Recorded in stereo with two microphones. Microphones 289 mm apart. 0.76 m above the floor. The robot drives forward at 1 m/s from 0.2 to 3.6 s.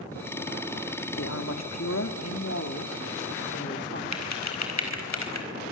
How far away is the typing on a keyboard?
About 4 m.